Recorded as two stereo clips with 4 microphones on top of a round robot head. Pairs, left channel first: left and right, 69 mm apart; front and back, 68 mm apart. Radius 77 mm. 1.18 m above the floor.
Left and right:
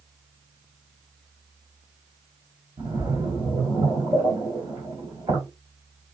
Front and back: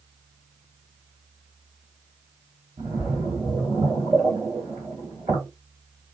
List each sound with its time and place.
2.8 s a splash: 145° right, 1.7 m